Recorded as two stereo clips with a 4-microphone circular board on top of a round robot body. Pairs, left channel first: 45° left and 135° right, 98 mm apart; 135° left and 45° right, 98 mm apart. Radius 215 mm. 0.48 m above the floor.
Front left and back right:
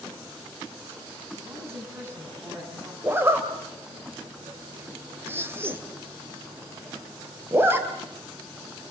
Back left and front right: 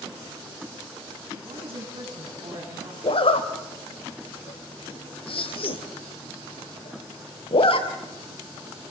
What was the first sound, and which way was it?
A woman speaking, 70° right.